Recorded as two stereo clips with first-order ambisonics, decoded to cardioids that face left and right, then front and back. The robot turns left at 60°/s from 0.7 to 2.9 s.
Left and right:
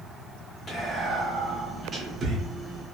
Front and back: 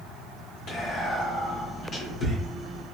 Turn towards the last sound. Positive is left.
turn(degrees=-90)